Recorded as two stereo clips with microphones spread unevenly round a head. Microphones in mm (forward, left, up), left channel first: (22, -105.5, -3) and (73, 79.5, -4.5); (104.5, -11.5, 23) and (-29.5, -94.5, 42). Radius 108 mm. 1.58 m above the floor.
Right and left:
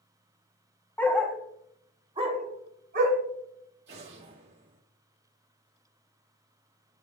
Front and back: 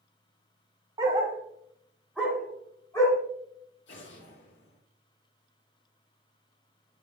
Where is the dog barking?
175° right, 1.1 m; by 3.2 s 110° left, 1.5 m.